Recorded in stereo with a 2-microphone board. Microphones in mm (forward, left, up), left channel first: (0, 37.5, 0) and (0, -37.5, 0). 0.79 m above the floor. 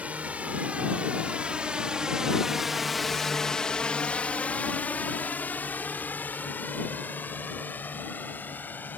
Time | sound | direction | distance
0.0 | a drone | 20° right (ahead or behind) | ?